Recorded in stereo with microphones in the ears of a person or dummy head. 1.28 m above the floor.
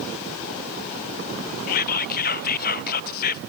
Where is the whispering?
50° left (ahead or behind), 0.5 m.